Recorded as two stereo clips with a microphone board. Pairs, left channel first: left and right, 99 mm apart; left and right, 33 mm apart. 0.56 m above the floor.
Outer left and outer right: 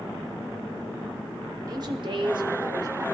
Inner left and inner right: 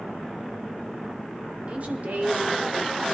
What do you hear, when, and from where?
1.7 s a woman speaking: 40° right (ahead or behind), 1.1 m